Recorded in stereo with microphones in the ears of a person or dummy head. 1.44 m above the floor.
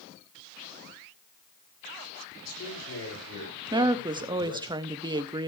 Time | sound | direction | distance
2.4 | a man speaking | 80° left | 7.5 m
3.7 | a woman speaking | 20° right (ahead or behind) | 0.8 m